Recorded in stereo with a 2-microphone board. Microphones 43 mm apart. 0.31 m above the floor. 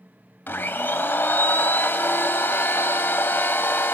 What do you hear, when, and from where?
0.5 s a blender: 60° left (ahead or behind), 0.6 m